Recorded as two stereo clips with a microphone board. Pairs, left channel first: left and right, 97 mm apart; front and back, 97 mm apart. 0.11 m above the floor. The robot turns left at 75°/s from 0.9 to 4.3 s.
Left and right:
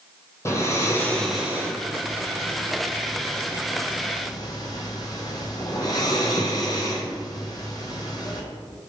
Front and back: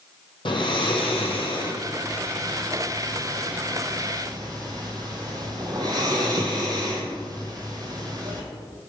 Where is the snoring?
30° left, 0.6 m; by 8.4 s 135° left, 0.6 m.